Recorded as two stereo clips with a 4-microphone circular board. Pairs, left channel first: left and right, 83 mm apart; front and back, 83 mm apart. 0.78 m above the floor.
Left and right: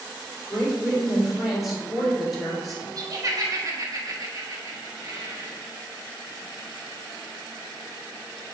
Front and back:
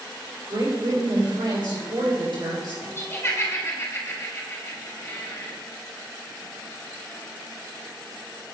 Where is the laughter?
55° right, 1.4 m.